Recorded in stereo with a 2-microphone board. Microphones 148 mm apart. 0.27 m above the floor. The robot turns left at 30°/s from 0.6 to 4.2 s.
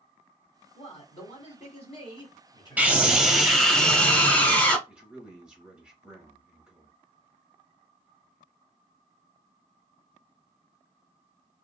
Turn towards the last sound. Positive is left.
turn(degrees=-5)  # may be behind; listen again after turning